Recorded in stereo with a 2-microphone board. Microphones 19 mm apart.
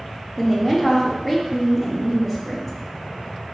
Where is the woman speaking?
5° right (ahead or behind), 0.7 m.